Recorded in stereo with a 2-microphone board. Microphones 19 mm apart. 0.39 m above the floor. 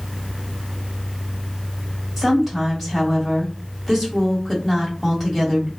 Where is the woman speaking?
5° right (ahead or behind), 1.6 m.